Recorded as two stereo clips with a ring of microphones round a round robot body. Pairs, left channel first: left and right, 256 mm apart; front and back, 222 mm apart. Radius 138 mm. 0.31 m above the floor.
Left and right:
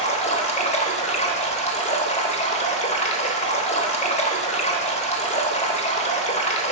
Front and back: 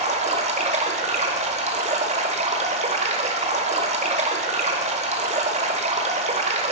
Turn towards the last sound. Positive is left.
turn(degrees=140)